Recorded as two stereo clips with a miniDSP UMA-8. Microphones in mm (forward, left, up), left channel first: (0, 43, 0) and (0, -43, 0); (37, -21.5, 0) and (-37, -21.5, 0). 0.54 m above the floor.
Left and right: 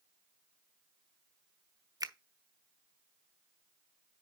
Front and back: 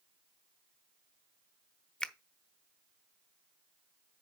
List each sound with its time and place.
2.0 s a finger snap: 75° right, 0.6 m